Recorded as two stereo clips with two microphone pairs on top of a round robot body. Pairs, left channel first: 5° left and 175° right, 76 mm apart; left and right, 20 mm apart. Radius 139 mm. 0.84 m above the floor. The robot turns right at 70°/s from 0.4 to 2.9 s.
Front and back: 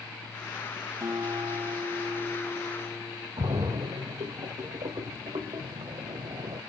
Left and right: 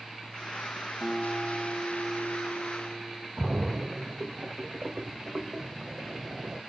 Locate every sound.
1.0 s a guitar: 135° left, 2.5 m; by 3.3 s 95° right, 2.5 m
3.4 s a splash: 150° right, 1.4 m